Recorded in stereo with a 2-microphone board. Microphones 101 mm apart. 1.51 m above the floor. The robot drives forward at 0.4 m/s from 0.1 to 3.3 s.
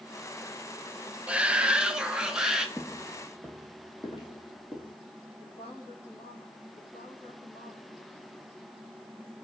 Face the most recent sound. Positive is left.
turn(degrees=70)  # may be behind; listen again after turning